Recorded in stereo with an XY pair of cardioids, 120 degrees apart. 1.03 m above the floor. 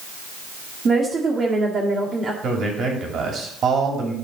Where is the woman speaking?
35° right, 2.0 m.